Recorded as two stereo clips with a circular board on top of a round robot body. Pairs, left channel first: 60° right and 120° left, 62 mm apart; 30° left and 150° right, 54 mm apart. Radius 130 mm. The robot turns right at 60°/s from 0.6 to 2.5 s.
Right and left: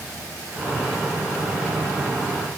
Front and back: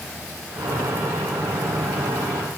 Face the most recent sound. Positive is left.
No sound to turn to.